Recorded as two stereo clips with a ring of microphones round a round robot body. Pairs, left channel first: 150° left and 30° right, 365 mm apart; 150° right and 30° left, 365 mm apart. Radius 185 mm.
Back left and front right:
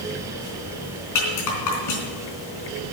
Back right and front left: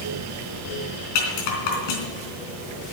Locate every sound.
1.1 s a rattle: 170° right, 3.5 m